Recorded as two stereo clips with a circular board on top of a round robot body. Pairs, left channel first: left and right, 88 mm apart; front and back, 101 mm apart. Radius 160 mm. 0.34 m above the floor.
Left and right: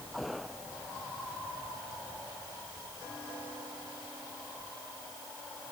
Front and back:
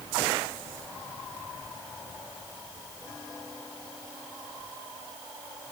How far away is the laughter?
No laughter in this recording.